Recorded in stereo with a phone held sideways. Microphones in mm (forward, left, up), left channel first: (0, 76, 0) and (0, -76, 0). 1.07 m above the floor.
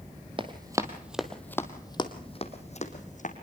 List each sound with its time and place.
0.4 s running footsteps: 35° right (ahead or behind), 1.6 m; by 3.3 s 55° left (ahead or behind), 2.5 m